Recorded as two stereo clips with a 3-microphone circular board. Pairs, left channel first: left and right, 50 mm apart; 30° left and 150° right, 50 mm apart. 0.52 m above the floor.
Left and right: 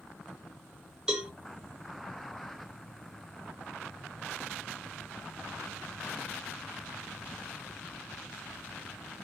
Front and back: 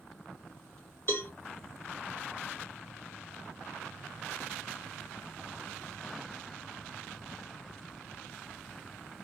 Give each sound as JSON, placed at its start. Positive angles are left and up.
{"t": 1.1, "sound": "a cowbell", "azimuth_deg": -15, "distance_m": 1.5}